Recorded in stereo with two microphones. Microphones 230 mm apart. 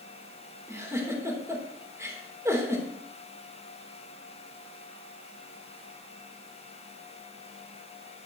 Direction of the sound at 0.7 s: 10° right (ahead or behind).